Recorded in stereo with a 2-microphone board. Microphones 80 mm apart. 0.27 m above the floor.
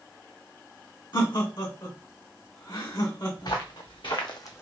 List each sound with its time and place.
1.1 s laughter: 60° left (ahead or behind), 1.8 m
3.4 s footsteps: 75° left (ahead or behind), 1.8 m; by 4.6 s 30° left (ahead or behind), 0.7 m